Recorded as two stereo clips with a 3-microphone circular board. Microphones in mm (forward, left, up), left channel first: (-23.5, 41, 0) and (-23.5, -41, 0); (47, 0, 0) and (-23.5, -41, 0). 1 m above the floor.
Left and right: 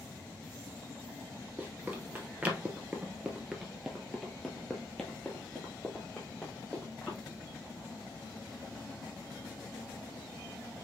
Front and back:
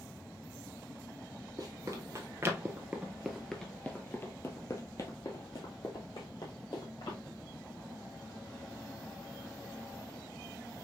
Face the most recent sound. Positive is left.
turn(degrees=15)